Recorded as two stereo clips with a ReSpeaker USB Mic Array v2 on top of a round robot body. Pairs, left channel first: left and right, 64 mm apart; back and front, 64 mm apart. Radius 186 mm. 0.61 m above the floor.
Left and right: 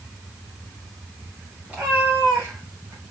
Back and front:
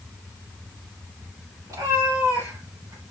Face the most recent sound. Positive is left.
turn(degrees=-45)